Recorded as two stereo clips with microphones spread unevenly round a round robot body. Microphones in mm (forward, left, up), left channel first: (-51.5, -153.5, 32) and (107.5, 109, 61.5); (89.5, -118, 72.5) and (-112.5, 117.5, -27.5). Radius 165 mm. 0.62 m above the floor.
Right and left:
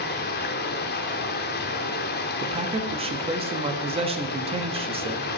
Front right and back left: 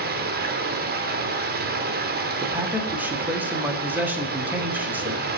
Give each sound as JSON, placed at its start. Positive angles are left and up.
{"t": 0.0, "sound": "running water", "azimuth_deg": -175, "distance_m": 1.2}
{"t": 2.4, "sound": "a man speaking", "azimuth_deg": 120, "distance_m": 1.1}